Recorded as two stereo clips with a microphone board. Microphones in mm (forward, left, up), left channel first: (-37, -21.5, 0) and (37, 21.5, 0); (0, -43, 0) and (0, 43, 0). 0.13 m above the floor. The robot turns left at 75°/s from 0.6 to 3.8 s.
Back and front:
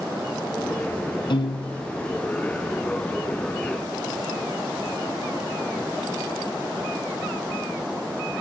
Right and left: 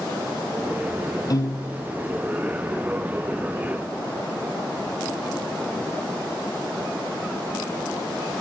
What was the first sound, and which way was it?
A piano, 130° right.